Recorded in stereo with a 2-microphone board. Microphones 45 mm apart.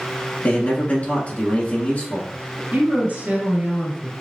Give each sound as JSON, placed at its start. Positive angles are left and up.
{"t": 0.4, "sound": "a man speaking", "side_deg": 40, "distance_m": 1.7}
{"t": 2.7, "sound": "a woman speaking", "side_deg": -40, "distance_m": 2.5}